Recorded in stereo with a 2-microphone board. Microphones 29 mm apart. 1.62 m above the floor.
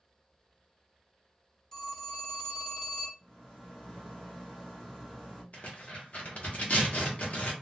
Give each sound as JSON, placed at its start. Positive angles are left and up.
{"t": 1.7, "sound": "a phone ringing", "side_deg": 15, "distance_m": 0.9}
{"t": 3.2, "sound": "a rattle", "side_deg": 10, "distance_m": 1.4}
{"t": 5.5, "sound": "tearing paper", "side_deg": 45, "distance_m": 0.9}